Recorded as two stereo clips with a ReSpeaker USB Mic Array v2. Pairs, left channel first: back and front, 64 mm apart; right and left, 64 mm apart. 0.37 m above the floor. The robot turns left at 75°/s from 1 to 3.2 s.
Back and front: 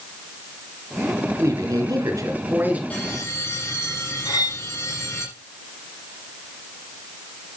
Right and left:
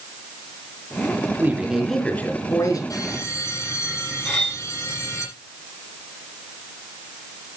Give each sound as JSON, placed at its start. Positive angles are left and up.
{"t": 1.4, "sound": "a man speaking", "azimuth_deg": 35, "distance_m": 4.0}
{"t": 2.9, "sound": "a bell", "azimuth_deg": -110, "distance_m": 9.5}
{"t": 4.2, "sound": "cutlery clinking", "azimuth_deg": -170, "distance_m": 6.0}